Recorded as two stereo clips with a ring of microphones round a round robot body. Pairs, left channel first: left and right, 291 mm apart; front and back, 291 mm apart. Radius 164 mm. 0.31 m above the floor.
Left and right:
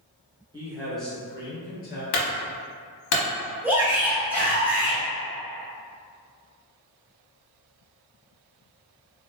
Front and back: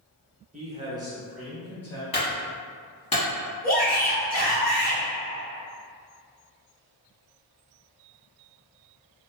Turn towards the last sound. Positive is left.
turn(degrees=-10)